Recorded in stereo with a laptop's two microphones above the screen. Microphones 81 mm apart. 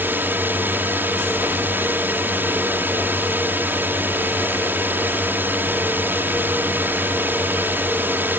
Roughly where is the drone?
Right.